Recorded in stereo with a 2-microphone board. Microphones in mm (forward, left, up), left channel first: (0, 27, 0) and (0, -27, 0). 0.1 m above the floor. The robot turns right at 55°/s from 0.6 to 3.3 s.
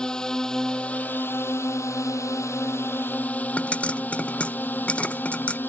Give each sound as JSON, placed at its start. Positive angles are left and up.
{"t": 0.0, "sound": "a drone", "side_deg": 15}
{"t": 3.6, "sound": "a pop", "side_deg": 20}